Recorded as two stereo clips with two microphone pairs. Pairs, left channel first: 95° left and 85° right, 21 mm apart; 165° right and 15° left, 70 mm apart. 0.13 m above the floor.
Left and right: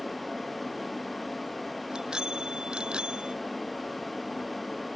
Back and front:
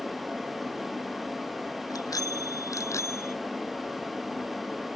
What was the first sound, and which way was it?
A bicycle bell, 140° right.